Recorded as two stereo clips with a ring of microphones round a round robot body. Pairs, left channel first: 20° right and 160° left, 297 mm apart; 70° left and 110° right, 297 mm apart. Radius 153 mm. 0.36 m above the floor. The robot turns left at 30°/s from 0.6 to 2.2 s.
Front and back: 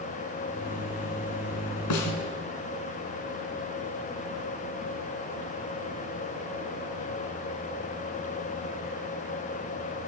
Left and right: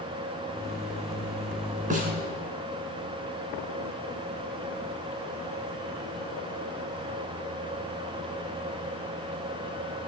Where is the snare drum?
45° right, 3 m; by 2.1 s 55° right, 3 m.